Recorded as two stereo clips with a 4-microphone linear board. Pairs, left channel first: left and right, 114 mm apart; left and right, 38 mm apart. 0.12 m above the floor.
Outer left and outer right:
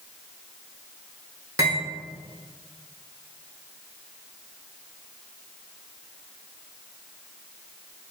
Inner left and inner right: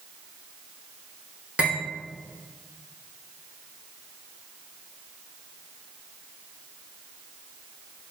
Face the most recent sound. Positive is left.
turn(degrees=-30)  # may be behind; listen again after turning